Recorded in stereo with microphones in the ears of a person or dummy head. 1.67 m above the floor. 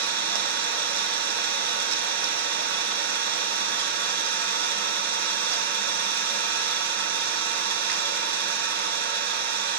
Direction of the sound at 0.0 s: 60° right (ahead or behind).